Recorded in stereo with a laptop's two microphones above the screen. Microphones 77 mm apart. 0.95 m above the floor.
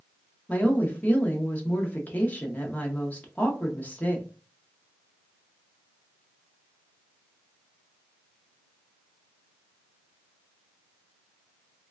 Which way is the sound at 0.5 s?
20° left (ahead or behind).